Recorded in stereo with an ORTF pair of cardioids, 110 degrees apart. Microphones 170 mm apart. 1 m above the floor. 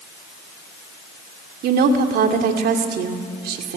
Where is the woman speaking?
65° right, 2.5 m.